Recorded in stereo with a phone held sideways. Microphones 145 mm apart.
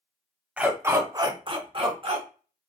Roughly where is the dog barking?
Centre.